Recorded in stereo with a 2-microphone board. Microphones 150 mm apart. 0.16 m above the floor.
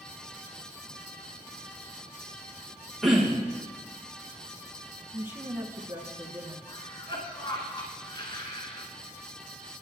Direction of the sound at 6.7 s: 35° left (ahead or behind).